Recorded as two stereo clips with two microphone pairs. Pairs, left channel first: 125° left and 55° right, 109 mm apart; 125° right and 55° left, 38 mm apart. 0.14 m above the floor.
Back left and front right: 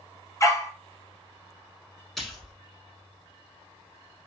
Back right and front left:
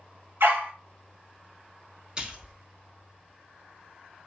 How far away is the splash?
About 0.9 m.